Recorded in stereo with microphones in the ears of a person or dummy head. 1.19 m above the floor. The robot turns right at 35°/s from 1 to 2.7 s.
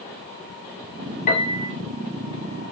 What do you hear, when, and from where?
1.3 s a piano: 40° left (ahead or behind), 1.0 m; by 1.7 s 25° left (ahead or behind), 1.0 m